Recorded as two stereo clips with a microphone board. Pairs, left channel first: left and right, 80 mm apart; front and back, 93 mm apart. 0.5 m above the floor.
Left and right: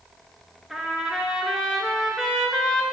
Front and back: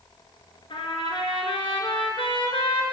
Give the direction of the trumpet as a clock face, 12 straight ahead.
12 o'clock.